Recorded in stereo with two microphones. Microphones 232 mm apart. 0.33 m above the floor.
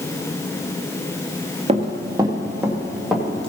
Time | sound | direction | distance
1.7 | running footsteps | 25° right (ahead or behind) | 1.6 m